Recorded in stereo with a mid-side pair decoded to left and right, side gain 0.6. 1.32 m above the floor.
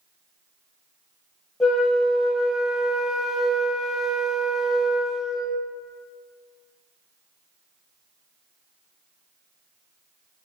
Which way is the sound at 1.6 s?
20° left.